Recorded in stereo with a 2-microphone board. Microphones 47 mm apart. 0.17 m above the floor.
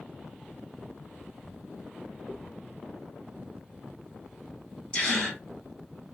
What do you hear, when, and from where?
2.3 s a dropped coin: 20° right (ahead or behind), 0.8 m
4.9 s a gasp: 20° left (ahead or behind), 1.4 m